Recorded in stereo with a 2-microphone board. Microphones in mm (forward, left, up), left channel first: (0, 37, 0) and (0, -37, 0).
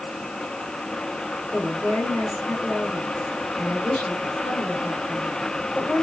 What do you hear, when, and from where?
1.5 s a woman speaking: 5° left (ahead or behind), 4 m